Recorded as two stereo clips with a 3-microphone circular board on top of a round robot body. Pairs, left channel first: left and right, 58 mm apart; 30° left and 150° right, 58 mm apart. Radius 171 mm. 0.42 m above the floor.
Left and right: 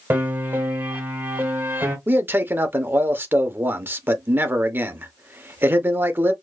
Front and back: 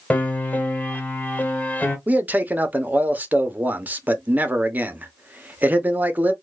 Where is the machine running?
I don't hear a machine running.